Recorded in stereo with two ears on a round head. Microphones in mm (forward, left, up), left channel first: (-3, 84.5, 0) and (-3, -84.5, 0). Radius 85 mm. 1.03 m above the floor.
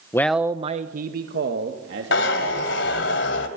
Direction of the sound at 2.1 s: 70° left (ahead or behind).